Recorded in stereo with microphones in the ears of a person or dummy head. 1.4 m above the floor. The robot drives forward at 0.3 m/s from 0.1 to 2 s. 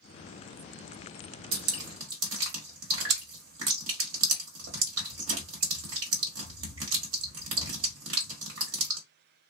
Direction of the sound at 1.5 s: 80° right.